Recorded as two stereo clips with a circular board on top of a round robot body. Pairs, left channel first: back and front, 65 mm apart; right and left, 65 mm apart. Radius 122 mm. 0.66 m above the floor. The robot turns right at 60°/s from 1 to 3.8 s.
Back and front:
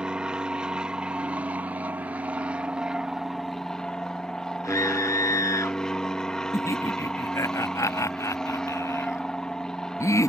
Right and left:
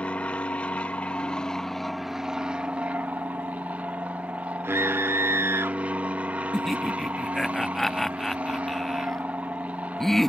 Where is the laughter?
175° right.